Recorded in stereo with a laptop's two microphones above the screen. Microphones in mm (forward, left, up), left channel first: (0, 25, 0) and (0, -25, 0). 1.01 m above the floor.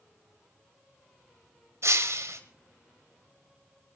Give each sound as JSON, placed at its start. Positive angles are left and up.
{"t": 1.8, "sound": "breaking glass", "side_deg": -70, "distance_m": 1.6}